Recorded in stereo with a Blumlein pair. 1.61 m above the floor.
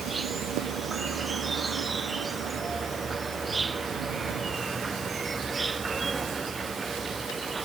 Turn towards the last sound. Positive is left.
turn(degrees=-10)